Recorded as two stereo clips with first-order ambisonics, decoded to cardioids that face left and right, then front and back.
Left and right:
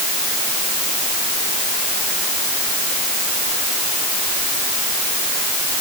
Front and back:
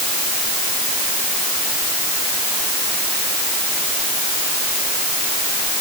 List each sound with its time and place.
Only background noise.